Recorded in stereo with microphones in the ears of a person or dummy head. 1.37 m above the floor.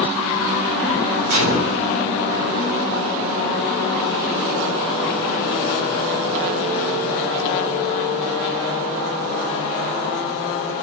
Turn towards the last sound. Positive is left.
turn(degrees=-75)  # may be behind; listen again after turning